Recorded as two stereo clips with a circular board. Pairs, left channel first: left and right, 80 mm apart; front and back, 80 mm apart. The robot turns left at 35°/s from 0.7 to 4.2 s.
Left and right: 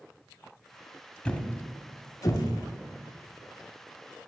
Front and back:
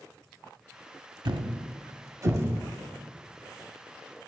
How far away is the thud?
About 0.6 m.